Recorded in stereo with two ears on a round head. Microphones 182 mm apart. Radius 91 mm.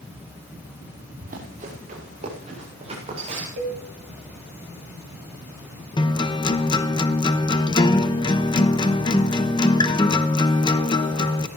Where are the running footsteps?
45° right (ahead or behind), 6 m; by 3.5 s 30° right (ahead or behind), 9 m.